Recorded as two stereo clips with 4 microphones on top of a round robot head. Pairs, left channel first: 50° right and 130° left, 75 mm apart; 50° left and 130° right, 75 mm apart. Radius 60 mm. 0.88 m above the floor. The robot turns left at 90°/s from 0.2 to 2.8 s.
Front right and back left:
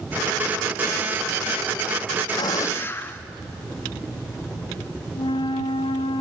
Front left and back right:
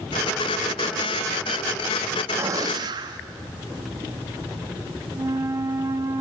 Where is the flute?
75° right, 1.1 m.